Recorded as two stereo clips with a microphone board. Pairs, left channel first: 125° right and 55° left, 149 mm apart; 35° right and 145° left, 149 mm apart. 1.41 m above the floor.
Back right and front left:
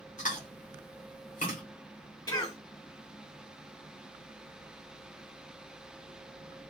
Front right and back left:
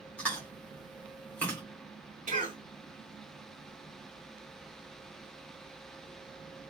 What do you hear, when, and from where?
0.2 s chewing: 110° right, 1.8 m
2.3 s a cough: 175° left, 1.7 m